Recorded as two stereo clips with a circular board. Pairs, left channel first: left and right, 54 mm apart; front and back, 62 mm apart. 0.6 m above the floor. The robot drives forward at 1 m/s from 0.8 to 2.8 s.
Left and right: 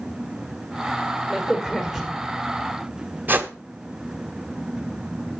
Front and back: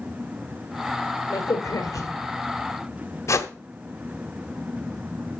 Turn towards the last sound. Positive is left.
turn(degrees=-35)